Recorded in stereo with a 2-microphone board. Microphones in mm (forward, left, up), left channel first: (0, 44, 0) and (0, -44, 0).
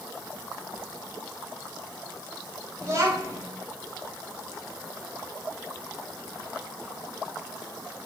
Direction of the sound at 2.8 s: 35° right (ahead or behind).